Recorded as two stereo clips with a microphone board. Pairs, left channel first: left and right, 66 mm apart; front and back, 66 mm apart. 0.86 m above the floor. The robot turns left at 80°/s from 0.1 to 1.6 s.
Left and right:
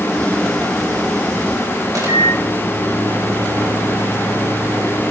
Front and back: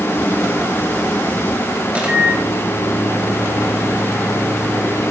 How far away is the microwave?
About 4 m.